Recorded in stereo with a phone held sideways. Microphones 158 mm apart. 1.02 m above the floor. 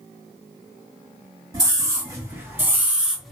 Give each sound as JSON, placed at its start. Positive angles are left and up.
{"t": 1.5, "sound": "a scream", "side_deg": -25, "distance_m": 1.9}